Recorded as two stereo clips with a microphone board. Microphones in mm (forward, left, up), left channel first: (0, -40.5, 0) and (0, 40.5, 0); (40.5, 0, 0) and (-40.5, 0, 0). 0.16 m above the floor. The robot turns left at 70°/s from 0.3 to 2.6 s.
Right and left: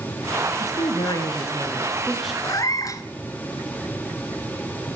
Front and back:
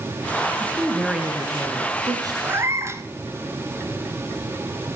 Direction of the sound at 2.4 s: 115° right.